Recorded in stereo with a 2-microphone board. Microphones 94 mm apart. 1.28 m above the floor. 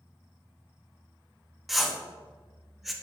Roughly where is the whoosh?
Centre.